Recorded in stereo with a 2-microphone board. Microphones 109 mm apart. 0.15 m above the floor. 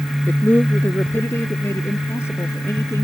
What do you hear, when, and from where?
0.3 s a man speaking: 15° left (ahead or behind); by 3.0 s 25° left (ahead or behind)